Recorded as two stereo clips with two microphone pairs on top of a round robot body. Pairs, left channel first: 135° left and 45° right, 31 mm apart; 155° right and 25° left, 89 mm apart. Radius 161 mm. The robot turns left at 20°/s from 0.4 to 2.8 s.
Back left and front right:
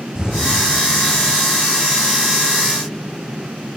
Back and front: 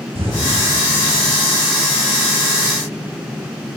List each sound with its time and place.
0.1 s an explosion: 20° left, 5.5 m; by 0.6 s 15° left, 5.5 m